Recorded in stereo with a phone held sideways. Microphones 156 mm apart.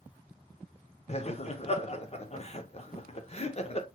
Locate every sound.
1.1 s laughter: 45° left (ahead or behind), 0.6 m